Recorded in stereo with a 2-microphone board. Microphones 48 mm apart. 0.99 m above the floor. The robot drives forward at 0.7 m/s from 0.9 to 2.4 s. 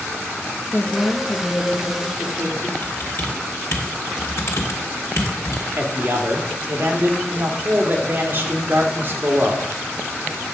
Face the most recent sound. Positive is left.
turn(degrees=-40)  # may be behind; listen again after turning